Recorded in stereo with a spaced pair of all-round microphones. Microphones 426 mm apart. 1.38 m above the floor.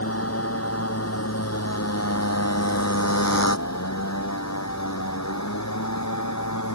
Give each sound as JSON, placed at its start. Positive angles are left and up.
{"t": 0.0, "sound": "a motorcycle", "side_deg": 35}